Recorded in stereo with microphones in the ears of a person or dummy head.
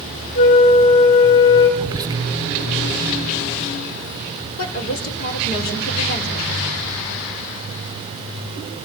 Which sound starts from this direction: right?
Whispering, at 1.8 s.